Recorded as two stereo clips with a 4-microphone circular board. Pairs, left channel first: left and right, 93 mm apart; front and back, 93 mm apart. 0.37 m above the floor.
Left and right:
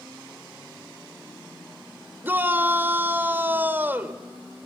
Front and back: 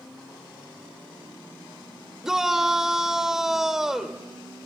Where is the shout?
105° right, 1.2 m.